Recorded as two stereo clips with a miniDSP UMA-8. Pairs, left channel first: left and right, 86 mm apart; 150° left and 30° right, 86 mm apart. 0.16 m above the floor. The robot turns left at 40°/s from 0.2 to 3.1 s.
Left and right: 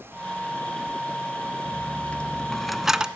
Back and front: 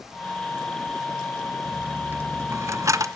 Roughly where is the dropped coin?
Ahead left.